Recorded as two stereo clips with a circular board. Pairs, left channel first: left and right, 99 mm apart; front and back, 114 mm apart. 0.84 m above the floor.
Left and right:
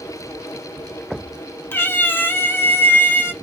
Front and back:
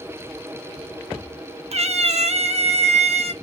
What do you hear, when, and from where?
1.7 s a cat meowing: 160° left, 0.6 m